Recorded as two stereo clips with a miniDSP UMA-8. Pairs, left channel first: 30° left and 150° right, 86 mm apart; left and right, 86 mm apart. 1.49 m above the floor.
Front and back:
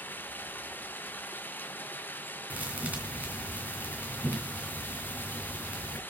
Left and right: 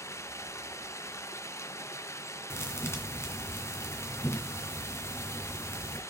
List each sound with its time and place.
0.0 s running water: 80° left, 0.7 m
2.5 s a thud: 140° left, 2.5 m